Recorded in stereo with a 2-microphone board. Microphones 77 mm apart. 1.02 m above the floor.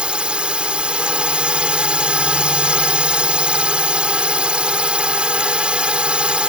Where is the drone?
15° right (ahead or behind).